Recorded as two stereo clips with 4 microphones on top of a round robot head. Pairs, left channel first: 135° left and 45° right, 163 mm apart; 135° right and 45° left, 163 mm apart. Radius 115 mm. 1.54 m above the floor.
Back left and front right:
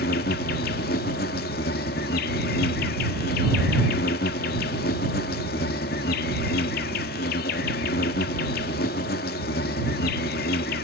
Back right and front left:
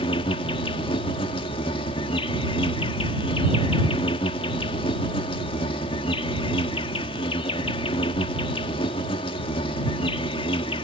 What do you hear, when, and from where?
0.0 s an insect: 165° left